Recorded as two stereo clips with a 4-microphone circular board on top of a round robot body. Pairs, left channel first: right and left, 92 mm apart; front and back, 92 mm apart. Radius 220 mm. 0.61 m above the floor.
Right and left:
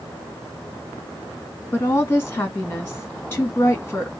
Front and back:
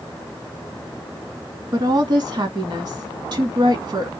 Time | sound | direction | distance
1.7 | a woman speaking | 150° right | 1.7 m